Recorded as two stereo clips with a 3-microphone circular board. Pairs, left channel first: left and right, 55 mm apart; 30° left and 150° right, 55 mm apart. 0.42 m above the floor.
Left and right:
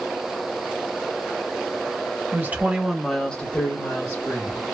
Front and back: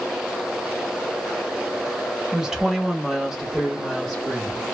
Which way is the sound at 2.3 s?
75° right.